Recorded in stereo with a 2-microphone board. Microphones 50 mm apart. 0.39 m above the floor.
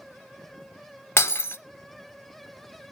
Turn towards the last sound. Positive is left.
turn(degrees=60)  # may be behind; listen again after turning